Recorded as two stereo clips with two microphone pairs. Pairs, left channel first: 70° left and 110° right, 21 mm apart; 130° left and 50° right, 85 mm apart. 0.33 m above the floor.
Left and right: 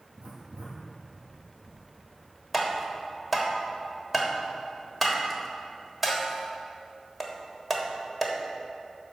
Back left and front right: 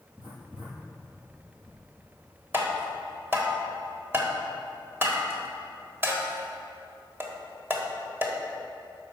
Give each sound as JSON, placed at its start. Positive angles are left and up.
{"t": 0.2, "sound": "writing", "azimuth_deg": -135, "distance_m": 2.5}
{"t": 2.5, "sound": "tapping", "azimuth_deg": -40, "distance_m": 1.3}